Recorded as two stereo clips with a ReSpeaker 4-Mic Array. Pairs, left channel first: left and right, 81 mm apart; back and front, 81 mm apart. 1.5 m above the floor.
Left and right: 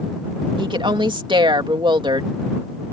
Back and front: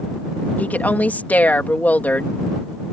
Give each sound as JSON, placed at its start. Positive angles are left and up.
{"t": 0.6, "sound": "a woman speaking", "azimuth_deg": -110}